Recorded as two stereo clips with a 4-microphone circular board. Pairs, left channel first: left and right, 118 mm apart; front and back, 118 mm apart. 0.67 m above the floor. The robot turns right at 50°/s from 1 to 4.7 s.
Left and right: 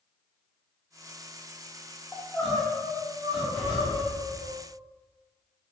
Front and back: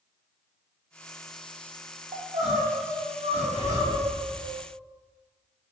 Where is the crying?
160° left, 0.7 m; by 4.5 s 80° right, 0.7 m.